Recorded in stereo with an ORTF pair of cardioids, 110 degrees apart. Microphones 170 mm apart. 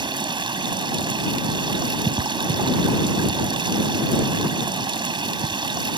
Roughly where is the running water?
Ahead right.